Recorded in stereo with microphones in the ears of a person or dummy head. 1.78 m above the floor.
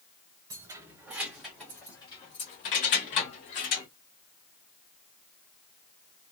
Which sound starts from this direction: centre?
Keys jangling, at 0.5 s.